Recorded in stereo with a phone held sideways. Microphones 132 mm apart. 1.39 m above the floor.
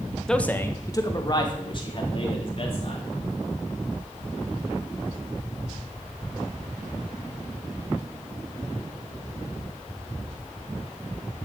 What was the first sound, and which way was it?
A man speaking, 5° left (ahead or behind).